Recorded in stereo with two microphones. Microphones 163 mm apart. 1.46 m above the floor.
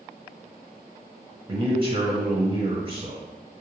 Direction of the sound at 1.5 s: 30° right (ahead or behind).